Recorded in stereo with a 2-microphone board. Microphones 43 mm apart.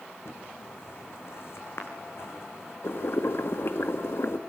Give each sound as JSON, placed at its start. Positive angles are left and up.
{"t": 0.2, "sound": "footsteps", "side_deg": 70, "distance_m": 4.5}
{"t": 2.8, "sound": "boiling", "side_deg": 70, "distance_m": 1.8}